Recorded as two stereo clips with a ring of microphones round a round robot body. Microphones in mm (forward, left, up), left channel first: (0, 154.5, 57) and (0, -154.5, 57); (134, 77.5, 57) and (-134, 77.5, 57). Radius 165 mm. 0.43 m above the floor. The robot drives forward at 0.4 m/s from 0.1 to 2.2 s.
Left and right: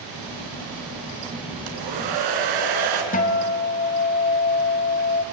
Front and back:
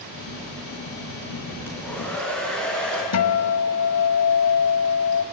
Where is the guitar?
25° left, 1.3 m.